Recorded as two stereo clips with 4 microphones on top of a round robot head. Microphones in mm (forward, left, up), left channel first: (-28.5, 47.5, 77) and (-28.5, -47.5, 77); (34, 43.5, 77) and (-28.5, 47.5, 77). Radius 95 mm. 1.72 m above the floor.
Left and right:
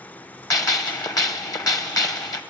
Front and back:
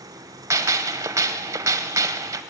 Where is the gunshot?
140° left, 1.2 m.